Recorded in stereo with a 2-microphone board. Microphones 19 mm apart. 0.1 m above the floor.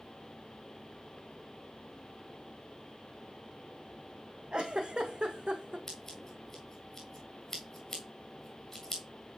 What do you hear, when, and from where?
4.5 s a giggle: 55° right (ahead or behind), 1.2 m
5.9 s scissors: 10° left (ahead or behind), 2.0 m